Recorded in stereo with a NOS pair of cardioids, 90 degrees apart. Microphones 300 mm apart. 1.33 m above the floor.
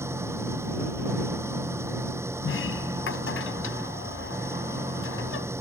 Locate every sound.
0.0 s an engine running: 10° right
2.4 s a sliding door: 45° left